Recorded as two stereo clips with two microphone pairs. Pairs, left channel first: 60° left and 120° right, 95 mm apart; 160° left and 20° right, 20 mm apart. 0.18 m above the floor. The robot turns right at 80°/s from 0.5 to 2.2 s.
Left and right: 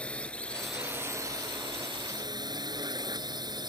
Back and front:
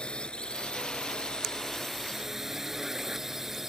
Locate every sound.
0.0 s a drone: 135° left; by 3.7 s 90° right